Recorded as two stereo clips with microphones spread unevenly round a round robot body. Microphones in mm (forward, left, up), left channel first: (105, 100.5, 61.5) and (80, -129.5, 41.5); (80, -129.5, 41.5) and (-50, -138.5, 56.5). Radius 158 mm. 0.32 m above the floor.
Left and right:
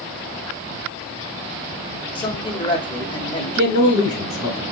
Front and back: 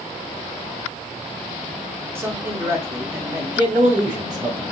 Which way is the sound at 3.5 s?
120° left.